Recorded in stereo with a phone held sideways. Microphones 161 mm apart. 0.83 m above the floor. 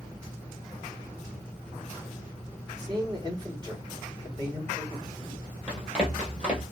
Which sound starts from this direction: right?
A man speaking, at 2.8 s.